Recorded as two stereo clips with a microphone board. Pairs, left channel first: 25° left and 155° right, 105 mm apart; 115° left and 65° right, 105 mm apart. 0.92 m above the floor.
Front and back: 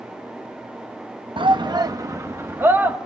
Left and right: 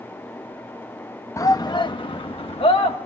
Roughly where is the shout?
Behind.